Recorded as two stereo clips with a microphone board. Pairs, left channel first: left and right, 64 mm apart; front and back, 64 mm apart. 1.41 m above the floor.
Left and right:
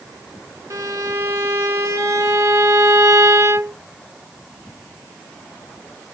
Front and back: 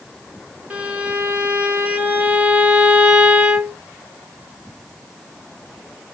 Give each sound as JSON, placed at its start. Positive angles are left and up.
{"t": 0.7, "sound": "a violin", "azimuth_deg": -115, "distance_m": 1.0}